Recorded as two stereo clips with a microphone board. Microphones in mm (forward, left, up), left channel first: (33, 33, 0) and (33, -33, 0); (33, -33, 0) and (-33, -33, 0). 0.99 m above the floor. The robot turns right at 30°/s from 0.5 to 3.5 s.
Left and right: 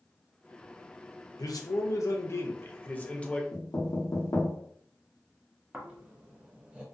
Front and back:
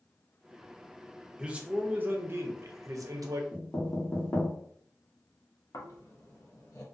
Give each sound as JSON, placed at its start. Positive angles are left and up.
{"t": 1.4, "sound": "a man speaking", "azimuth_deg": 105, "distance_m": 0.5}
{"t": 3.5, "sound": "knocking", "azimuth_deg": 60, "distance_m": 1.0}
{"t": 5.7, "sound": "snoring", "azimuth_deg": -20, "distance_m": 0.7}